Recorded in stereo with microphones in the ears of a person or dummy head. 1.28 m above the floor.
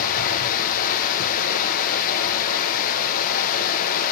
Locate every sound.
0.0 s running water: 50° left (ahead or behind), 0.8 m